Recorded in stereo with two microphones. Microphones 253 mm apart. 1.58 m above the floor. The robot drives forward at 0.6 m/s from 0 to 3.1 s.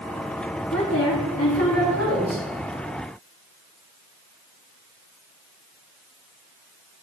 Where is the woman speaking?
80° left, 3.5 m.